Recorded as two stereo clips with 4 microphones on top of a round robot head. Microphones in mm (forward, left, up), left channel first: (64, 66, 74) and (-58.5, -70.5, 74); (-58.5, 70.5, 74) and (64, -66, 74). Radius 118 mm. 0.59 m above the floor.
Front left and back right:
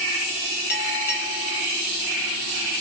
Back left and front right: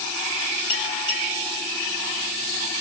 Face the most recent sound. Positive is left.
turn(degrees=70)